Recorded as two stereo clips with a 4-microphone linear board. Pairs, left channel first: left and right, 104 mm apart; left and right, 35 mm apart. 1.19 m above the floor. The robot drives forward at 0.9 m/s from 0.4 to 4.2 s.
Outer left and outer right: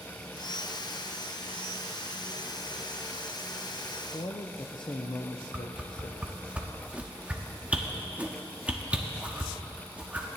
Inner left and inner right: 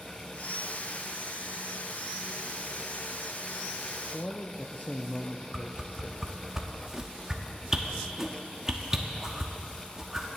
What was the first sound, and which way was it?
A man speaking, 50° left (ahead or behind).